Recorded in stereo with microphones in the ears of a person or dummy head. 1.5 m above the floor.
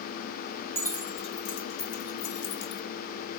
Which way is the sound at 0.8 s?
10° left (ahead or behind).